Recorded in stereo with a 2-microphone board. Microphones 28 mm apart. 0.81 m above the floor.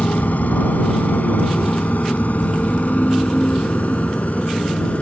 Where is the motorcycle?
75° left (ahead or behind); by 5.0 s 60° left (ahead or behind).